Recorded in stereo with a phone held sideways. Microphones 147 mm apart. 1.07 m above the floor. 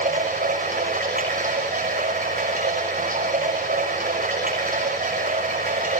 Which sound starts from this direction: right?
Running water, at 0.0 s.